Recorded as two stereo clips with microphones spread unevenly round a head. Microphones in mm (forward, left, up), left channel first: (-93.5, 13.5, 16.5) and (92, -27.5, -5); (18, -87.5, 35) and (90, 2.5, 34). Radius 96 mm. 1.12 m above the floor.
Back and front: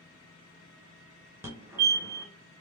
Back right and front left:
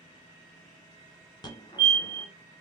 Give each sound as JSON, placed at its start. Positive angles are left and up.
{"t": 1.4, "sound": "a fire alarm", "azimuth_deg": -85, "distance_m": 2.0}